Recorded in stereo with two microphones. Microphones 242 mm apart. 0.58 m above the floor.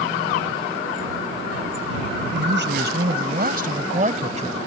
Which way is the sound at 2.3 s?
50° right (ahead or behind).